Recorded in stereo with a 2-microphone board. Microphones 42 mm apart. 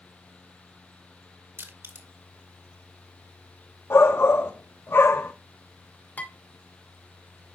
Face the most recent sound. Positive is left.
turn(degrees=45)  # may be behind; listen again after turning